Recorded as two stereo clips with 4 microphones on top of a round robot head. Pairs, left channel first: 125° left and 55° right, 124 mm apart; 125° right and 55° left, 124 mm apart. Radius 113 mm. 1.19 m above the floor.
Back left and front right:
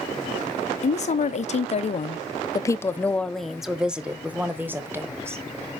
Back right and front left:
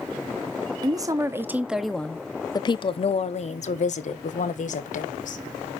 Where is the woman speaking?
110° left, 1.0 m; by 5.4 s 125° right, 1.8 m.